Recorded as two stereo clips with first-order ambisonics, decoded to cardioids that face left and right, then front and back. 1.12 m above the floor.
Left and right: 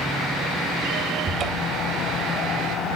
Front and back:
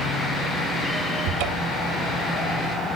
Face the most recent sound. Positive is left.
turn(degrees=-150)